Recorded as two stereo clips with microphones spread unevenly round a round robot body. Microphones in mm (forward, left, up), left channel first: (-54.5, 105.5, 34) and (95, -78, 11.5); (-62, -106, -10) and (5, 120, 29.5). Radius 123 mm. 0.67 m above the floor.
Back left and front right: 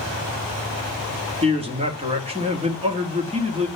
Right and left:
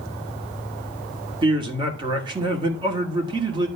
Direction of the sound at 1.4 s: Straight ahead.